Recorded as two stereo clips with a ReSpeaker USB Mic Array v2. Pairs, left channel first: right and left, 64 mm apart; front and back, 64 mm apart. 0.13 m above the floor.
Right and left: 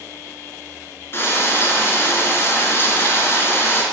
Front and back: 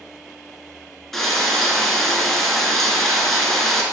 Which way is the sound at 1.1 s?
85° right.